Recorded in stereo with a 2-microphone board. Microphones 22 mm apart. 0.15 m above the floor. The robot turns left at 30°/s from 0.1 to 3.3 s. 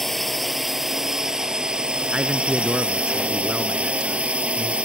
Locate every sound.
0.0 s a drone: 5° left; by 4.8 s 90° right
2.1 s a man speaking: 95° right; by 4.7 s 130° right